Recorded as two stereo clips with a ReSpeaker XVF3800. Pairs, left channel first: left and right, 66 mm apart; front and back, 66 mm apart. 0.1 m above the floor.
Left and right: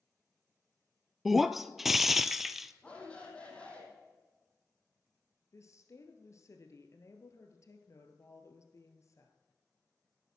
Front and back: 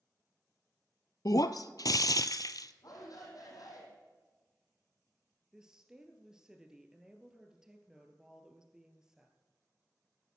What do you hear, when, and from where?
1.2 s breaking glass: straight ahead, 0.5 m
2.8 s a shout: 20° left, 3.5 m
5.5 s a woman speaking: 100° left, 1.7 m